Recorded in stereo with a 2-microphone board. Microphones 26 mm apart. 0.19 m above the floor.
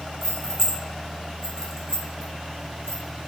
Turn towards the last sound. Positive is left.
turn(degrees=20)  # may be behind; listen again after turning